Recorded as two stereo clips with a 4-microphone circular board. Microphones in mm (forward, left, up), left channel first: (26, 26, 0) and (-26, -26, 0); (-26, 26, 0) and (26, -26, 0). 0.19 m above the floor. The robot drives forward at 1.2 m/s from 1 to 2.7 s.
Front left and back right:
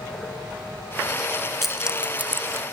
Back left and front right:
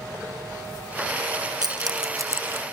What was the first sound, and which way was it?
Keys jangling, 45° right.